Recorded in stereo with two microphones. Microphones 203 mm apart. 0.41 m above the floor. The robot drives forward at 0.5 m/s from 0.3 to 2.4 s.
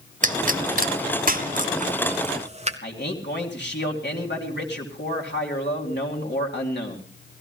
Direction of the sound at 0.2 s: 40° right (ahead or behind).